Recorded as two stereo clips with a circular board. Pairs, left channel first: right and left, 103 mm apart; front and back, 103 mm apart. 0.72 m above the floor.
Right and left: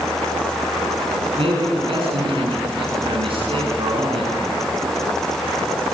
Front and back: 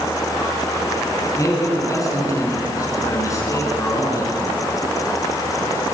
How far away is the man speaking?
About 8 m.